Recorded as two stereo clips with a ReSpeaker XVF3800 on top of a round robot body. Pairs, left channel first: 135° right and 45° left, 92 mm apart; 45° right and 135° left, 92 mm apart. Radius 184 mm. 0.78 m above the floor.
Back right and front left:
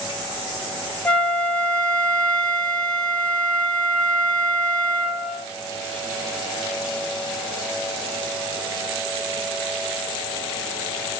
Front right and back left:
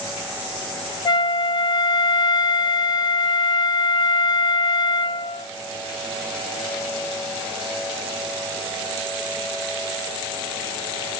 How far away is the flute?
About 1.0 m.